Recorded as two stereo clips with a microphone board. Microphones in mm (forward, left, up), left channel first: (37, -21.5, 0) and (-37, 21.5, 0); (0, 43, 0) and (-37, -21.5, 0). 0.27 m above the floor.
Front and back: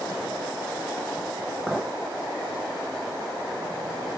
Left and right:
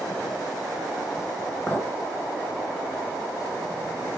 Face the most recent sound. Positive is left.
turn(degrees=50)